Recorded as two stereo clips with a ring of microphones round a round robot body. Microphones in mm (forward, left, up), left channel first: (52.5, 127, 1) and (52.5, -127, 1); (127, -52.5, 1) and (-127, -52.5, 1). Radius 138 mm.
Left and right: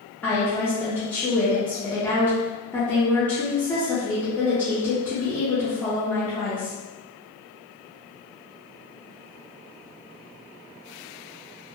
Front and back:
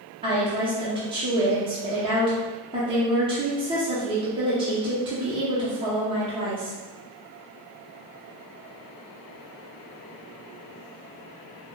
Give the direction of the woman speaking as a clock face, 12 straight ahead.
7 o'clock.